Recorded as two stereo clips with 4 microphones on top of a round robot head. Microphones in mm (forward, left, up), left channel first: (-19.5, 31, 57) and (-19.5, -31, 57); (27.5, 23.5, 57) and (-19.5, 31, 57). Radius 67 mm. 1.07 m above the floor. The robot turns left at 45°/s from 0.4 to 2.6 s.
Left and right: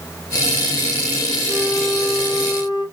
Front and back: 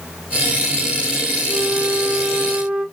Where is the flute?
160° left, 1.3 m; by 2.9 s 105° left, 1.3 m.